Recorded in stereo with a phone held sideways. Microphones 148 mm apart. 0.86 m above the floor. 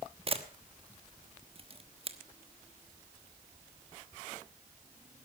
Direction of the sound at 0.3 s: 40° right (ahead or behind).